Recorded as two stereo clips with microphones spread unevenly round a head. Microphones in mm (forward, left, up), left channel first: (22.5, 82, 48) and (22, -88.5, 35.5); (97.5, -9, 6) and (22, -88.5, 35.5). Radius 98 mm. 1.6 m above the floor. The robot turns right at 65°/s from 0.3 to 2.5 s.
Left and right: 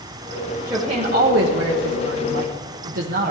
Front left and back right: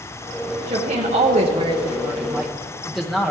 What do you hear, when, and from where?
0.7 s a woman speaking: 175° right, 0.8 m; by 3.3 s 55° right, 0.8 m